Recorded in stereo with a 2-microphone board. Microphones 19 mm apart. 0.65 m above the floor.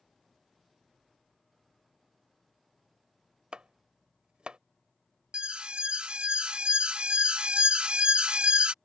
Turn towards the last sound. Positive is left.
turn(degrees=-60)  # may be behind; listen again after turning